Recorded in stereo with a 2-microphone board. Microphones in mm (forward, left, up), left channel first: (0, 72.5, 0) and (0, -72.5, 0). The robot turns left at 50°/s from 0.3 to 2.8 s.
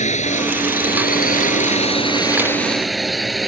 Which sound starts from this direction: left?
A drone, at 0.0 s.